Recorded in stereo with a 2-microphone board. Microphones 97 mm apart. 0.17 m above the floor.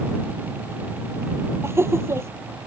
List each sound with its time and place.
1.6 s laughter: 25° right (ahead or behind)